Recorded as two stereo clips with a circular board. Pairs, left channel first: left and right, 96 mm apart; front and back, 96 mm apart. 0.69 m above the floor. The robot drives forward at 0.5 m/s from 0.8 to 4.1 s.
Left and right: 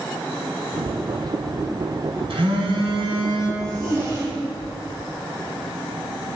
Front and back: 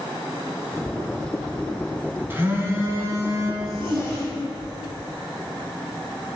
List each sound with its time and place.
2.3 s a phone buzzing: 115° right, 2.5 m; by 3.5 s 125° right, 2.5 m
3.6 s a zipper: 145° right, 5 m; by 4.9 s 150° right, 5 m